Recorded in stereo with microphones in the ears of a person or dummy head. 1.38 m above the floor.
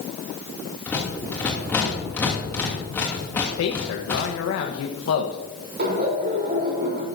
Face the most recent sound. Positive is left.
turn(degrees=-50)  # may be behind; listen again after turning